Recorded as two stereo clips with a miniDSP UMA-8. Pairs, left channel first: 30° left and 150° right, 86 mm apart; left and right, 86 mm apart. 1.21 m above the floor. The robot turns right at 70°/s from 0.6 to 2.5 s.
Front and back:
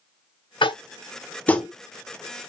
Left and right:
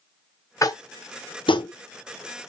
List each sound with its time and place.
0.6 s tapping: 40° left, 0.5 m; by 1.7 s 120° left, 0.5 m